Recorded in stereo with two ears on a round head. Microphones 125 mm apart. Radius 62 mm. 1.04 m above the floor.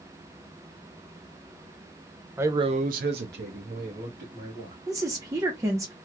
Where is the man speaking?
15° right (ahead or behind), 0.7 m; by 4.8 s 55° right (ahead or behind), 2 m.